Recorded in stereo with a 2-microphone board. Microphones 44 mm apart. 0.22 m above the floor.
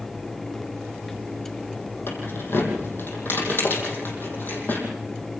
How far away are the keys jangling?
About 5.5 m.